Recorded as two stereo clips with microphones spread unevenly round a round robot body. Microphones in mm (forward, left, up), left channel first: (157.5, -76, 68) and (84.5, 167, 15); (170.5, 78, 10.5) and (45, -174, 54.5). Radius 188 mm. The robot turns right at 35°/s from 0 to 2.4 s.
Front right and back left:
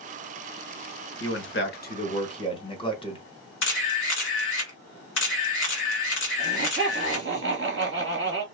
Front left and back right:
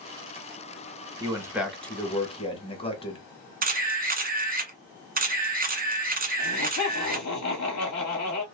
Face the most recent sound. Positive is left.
turn(degrees=85)